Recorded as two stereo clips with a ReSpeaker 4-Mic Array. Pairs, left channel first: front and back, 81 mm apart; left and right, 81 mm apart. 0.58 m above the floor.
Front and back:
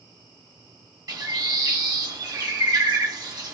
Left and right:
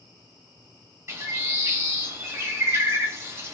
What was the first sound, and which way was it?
A bird, 150° right.